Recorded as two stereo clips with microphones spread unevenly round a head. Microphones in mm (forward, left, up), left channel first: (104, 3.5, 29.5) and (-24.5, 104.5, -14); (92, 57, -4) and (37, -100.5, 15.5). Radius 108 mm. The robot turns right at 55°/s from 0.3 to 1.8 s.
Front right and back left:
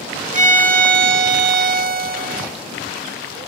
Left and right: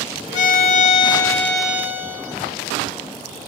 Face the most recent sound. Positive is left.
turn(degrees=-175)